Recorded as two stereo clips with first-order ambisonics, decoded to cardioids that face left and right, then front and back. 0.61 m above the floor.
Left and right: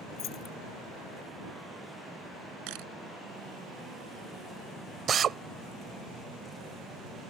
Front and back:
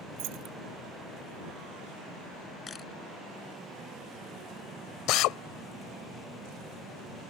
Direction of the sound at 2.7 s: 70° right.